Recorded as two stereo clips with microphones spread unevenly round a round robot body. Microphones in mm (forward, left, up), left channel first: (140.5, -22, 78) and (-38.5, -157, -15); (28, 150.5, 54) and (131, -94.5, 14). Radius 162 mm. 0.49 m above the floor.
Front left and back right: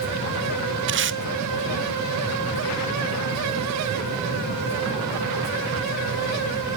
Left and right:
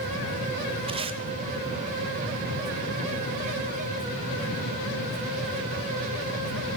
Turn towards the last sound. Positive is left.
turn(degrees=-135)